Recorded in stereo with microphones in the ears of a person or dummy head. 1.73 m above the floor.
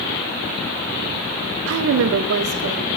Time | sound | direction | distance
1.7 | a woman speaking | 85° right | 0.5 m